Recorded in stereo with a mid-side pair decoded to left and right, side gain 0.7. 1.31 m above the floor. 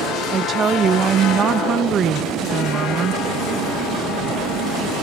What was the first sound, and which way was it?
A woman speaking, 35° right.